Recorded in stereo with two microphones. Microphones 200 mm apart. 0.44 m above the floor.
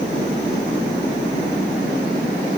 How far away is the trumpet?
No trumpet in this recording.